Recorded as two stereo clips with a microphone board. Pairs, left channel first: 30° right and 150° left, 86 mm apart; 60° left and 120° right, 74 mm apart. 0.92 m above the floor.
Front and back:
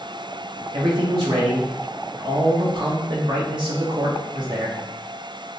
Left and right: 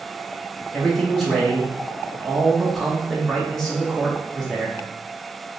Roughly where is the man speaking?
Behind left.